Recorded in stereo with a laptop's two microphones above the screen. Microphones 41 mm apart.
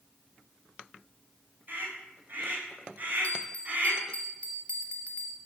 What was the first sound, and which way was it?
A scream, 50° right (ahead or behind).